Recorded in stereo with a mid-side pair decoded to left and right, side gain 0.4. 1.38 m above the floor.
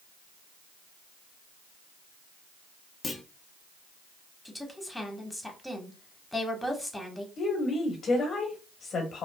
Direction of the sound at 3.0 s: 40° left.